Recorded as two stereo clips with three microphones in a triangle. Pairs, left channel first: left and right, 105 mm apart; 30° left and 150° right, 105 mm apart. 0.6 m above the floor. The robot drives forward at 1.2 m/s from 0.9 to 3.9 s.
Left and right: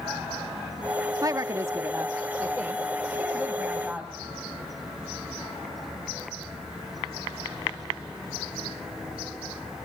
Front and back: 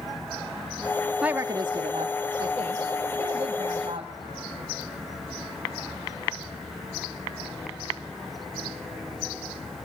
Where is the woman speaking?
75° right, 0.7 m; by 4.1 s 175° right, 3 m.